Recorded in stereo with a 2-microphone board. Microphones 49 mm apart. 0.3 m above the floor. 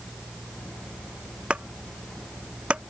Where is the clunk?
20° right (ahead or behind).